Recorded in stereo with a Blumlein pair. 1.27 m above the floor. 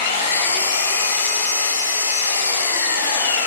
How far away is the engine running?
About 3 m.